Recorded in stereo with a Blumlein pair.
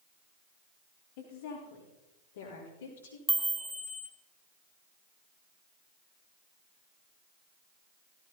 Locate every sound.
1.2 s a woman speaking: 55° left, 4 m; by 3.2 s 65° left, 4.5 m
3.3 s a chime: 5° right, 1.5 m